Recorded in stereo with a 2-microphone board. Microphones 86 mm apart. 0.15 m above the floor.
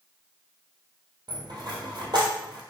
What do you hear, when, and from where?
1.3 s a dropped coin: 60° right (ahead or behind), 1.4 m